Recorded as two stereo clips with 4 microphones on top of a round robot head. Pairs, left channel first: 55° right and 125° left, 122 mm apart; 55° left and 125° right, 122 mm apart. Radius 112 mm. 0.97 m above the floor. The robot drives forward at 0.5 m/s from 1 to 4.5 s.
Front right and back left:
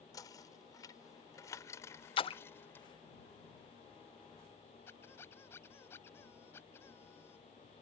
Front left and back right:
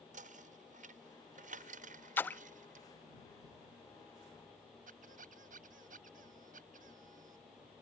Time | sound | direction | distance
0.1 | knocking | 115° right | ?
2.2 | a splash | 15° right | ?
4.9 | a squeak | 125° right | ?